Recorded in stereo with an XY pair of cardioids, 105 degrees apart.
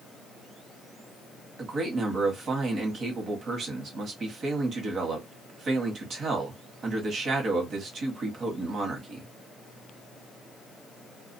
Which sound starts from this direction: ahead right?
A man speaking, at 1.6 s.